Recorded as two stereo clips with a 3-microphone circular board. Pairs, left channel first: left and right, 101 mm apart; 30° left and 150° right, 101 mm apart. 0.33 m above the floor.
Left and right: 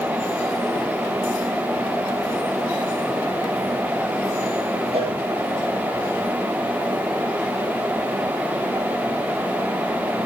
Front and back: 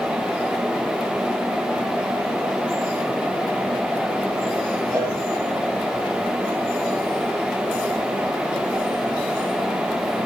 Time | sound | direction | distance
4.9 | a cowbell | 95° right | 5.5 m